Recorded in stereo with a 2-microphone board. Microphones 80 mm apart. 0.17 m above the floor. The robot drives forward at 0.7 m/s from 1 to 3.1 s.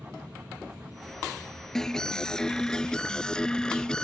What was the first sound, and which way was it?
An aircraft, 55° right (ahead or behind).